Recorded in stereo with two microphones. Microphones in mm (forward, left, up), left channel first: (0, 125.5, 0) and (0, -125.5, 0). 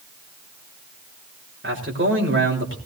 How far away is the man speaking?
About 3.5 m.